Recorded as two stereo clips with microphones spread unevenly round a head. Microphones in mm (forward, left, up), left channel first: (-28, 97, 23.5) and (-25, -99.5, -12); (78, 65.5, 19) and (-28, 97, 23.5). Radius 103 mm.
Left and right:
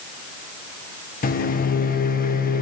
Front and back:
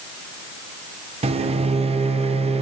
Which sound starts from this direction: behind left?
A microwave, at 1.2 s.